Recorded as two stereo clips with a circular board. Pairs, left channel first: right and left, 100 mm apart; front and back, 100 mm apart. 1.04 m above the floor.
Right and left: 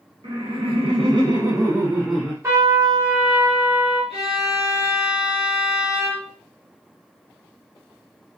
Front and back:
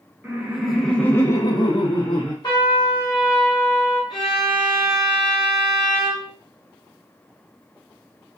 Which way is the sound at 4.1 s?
95° left.